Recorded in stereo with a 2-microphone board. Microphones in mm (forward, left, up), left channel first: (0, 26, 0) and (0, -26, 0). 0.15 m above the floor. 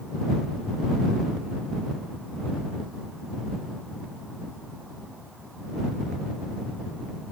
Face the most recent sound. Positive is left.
No sound to turn to.